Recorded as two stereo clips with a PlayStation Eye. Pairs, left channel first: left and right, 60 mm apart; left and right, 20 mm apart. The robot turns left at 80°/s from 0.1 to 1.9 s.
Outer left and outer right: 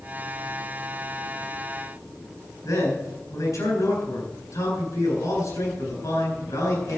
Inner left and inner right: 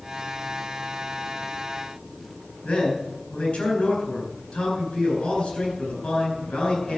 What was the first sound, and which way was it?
A man speaking, 75° left (ahead or behind).